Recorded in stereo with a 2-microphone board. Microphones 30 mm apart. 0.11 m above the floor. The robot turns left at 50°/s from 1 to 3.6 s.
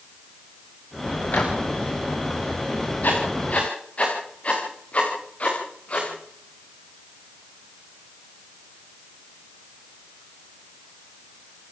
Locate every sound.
1.3 s a microwave: 60° left (ahead or behind), 7.5 m; by 1.6 s 75° left (ahead or behind), 7.5 m
3.0 s writing: 75° left (ahead or behind), 8.5 m; by 6.1 s 45° left (ahead or behind), 8.5 m